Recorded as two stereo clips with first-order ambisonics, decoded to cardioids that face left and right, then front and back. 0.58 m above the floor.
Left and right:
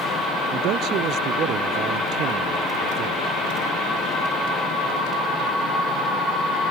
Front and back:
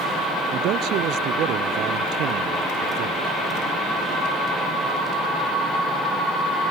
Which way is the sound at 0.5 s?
135° right.